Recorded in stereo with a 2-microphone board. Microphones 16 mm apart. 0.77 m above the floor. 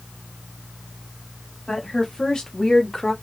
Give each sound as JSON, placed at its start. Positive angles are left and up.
{"t": 1.7, "sound": "a woman speaking", "side_deg": 55, "distance_m": 2.5}